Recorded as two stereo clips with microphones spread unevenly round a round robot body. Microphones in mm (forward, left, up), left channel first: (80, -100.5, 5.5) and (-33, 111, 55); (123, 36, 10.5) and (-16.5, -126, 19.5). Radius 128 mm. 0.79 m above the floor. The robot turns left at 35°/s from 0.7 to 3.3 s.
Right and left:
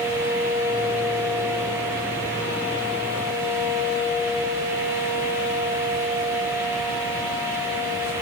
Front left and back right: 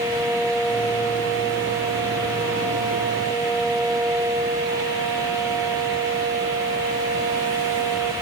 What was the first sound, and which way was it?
Only background noise.